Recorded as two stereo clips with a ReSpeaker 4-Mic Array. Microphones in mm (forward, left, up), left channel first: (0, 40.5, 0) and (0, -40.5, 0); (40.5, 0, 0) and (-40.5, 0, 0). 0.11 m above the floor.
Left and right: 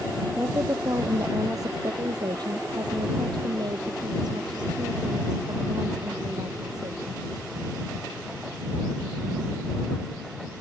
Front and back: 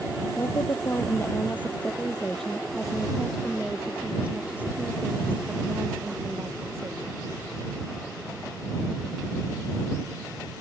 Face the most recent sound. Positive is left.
turn(degrees=-125)